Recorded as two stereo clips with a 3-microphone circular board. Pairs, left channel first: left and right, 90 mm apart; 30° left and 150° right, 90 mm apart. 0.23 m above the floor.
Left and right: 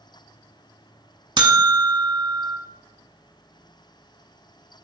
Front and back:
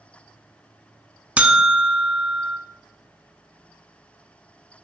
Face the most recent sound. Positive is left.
turn(degrees=-75)